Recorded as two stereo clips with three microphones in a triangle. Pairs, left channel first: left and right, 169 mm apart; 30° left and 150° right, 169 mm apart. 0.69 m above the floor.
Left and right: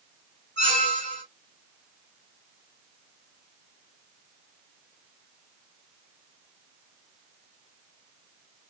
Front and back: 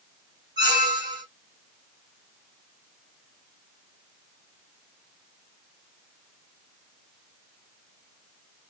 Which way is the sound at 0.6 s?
145° left.